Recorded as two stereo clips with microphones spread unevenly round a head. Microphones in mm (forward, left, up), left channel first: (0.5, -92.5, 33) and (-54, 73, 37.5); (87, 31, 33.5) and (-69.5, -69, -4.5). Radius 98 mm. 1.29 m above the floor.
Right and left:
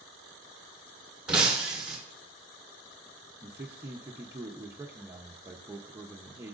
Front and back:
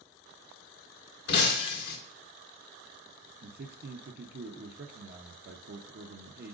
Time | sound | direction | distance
1.3 | breaking glass | 25° left | 1.6 m
3.4 | a man speaking | straight behind | 0.8 m